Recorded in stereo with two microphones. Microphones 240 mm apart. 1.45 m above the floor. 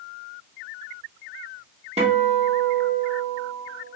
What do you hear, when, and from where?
2.0 s a guitar: 30° right (ahead or behind), 0.9 m